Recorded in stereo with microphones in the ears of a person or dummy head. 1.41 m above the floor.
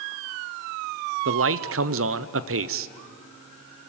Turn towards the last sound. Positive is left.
turn(degrees=-60)  # may be behind; listen again after turning